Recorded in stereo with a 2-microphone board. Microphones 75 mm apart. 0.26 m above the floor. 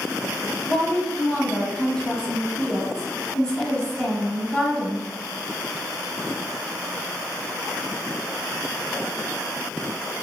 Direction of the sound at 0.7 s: 15° left (ahead or behind).